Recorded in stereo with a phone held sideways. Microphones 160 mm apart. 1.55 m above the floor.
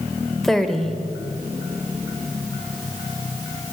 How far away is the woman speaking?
About 1.3 m.